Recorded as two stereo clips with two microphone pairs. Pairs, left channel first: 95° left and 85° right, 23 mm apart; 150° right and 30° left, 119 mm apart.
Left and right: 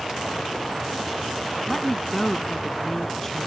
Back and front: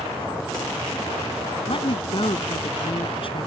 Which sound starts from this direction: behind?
A woman speaking, at 1.7 s.